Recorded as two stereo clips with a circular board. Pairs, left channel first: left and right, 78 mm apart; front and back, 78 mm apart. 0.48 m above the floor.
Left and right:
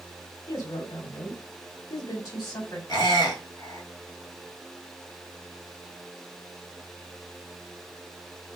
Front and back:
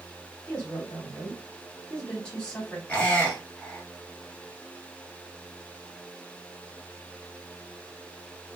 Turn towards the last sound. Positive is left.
turn(degrees=70)